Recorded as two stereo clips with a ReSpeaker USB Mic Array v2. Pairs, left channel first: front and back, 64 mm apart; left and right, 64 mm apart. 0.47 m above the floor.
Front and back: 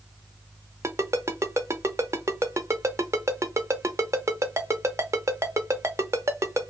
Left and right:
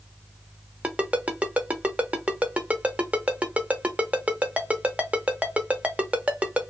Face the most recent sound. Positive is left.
turn(degrees=-155)